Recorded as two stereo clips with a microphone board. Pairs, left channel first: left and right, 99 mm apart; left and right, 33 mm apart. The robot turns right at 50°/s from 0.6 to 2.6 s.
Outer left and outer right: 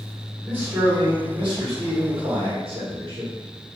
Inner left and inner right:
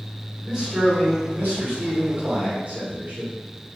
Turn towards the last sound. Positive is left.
turn(degrees=-60)